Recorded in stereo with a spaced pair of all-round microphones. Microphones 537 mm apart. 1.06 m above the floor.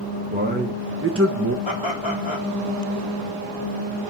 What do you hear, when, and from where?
0.3 s a man speaking: 15° right (ahead or behind), 1.2 m; by 1.6 s 30° right (ahead or behind), 0.7 m
1.6 s laughter: 60° left (ahead or behind), 1.9 m